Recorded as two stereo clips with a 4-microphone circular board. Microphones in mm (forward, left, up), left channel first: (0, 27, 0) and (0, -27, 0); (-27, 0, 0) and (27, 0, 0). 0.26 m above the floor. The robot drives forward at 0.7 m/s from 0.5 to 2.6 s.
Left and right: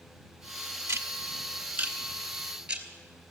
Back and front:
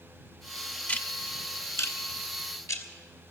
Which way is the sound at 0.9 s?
120° right.